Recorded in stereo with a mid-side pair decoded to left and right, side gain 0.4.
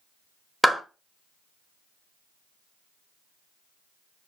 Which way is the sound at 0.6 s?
5° right.